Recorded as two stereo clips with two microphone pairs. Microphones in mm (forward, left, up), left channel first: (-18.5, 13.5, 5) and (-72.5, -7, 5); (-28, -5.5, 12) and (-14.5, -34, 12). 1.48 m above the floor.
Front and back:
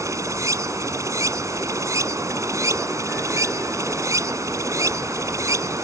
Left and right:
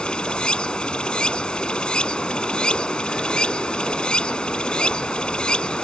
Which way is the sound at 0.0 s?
175° left.